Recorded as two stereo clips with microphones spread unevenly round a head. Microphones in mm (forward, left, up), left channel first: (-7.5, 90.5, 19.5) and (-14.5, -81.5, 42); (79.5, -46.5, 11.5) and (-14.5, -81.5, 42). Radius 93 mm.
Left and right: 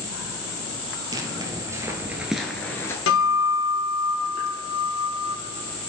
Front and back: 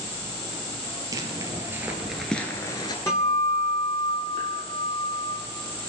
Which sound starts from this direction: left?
A guitar, at 3.1 s.